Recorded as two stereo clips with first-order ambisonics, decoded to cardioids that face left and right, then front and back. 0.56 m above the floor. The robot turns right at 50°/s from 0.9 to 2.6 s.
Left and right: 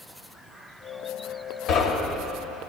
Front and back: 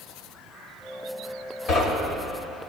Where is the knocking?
50° left, 2 m; by 2.3 s 80° left, 2 m.